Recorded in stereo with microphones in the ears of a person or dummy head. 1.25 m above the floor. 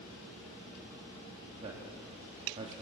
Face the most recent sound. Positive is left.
turn(degrees=-35)  # may be behind; listen again after turning